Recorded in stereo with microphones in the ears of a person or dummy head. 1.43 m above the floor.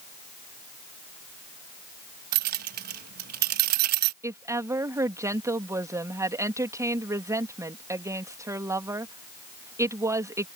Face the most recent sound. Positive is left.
turn(degrees=-15)  # may be behind; listen again after turning